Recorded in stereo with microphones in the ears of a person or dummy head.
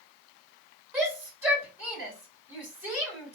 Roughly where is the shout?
Centre.